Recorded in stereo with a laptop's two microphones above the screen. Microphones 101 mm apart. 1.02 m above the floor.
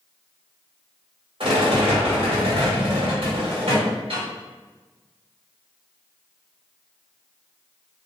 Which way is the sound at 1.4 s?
65° right (ahead or behind).